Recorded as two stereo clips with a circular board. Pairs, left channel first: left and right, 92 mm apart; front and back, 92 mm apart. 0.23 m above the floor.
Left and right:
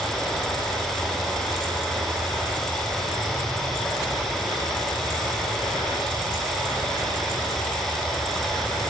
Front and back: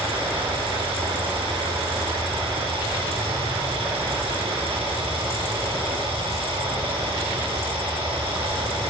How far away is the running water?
About 7.5 m.